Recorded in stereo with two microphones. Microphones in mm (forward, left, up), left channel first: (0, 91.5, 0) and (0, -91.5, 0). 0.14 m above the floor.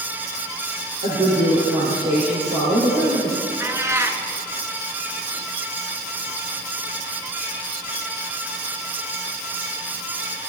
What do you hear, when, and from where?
1.0 s a woman speaking: 60° right (ahead or behind), 3 m
3.6 s a cat meowing: 15° right (ahead or behind), 0.7 m